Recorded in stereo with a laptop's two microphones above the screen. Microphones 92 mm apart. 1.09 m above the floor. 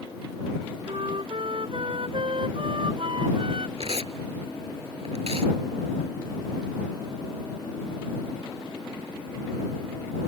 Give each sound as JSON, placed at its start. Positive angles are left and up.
{"t": 0.9, "sound": "a flute", "side_deg": -65}
{"t": 3.8, "sound": "tearing paper", "side_deg": -80}